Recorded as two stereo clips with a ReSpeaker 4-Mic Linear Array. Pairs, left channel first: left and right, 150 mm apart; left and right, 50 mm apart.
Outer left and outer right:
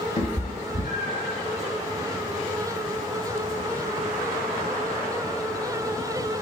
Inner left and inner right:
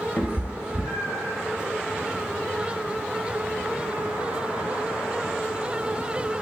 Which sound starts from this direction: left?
A cat meowing, at 0.2 s.